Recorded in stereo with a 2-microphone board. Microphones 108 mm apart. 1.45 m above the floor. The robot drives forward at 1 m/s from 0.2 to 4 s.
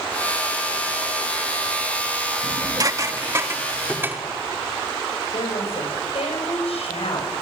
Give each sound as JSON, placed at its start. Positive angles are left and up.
{"t": 2.4, "sound": "dishes clattering", "side_deg": -45, "distance_m": 1.2}
{"t": 5.3, "sound": "a woman speaking", "side_deg": 75, "distance_m": 8.5}